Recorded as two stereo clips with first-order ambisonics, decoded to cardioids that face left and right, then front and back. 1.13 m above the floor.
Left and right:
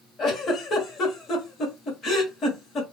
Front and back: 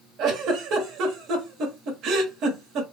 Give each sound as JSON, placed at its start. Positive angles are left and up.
{"t": 0.2, "sound": "a giggle", "azimuth_deg": 150, "distance_m": 1.2}